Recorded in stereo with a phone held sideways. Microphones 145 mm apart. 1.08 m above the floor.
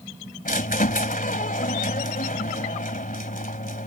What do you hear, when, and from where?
0.5 s a squeak: 65° left (ahead or behind)